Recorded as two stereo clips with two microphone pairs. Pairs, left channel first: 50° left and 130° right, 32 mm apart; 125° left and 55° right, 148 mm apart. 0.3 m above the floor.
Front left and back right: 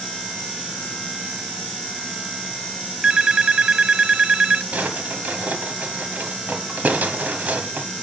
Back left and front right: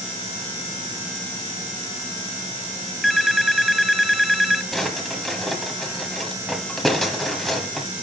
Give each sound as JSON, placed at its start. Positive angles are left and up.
{"t": 3.0, "sound": "a phone ringing", "azimuth_deg": -145, "distance_m": 0.6}
{"t": 4.7, "sound": "a drawer", "azimuth_deg": -145, "distance_m": 1.2}